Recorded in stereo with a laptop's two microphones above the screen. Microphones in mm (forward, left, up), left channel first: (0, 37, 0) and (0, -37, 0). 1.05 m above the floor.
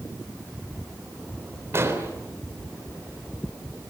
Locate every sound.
1.7 s an explosion: 35° right (ahead or behind), 3 m